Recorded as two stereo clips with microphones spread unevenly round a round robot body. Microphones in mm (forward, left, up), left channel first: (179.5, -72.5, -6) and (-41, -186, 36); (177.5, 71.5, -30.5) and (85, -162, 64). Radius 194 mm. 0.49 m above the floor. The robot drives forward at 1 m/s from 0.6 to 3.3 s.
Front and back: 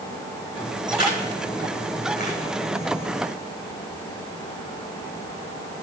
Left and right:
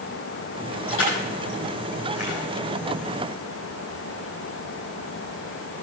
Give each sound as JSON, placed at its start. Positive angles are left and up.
{"t": 0.9, "sound": "crushing", "azimuth_deg": 130, "distance_m": 7.5}